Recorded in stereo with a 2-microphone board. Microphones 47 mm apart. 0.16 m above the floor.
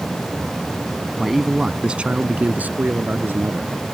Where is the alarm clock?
No alarm clock in this recording.